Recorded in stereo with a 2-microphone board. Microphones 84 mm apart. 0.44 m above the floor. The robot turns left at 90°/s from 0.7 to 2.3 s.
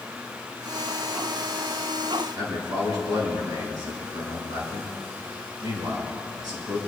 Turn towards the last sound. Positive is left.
turn(degrees=-50)  # may be behind; listen again after turning